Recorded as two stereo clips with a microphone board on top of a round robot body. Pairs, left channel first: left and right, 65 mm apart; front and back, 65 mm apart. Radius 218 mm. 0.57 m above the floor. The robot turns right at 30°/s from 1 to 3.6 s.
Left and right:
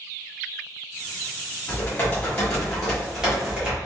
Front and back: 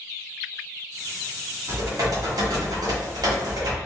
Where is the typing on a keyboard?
145° left, 1.4 m; by 3.8 s 160° right, 1.4 m.